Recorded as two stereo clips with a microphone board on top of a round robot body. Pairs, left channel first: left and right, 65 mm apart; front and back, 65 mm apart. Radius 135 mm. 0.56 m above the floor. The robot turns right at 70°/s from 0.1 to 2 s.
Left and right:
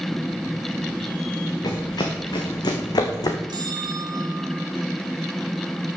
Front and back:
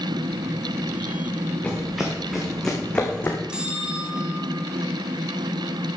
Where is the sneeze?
I don't hear a sneeze.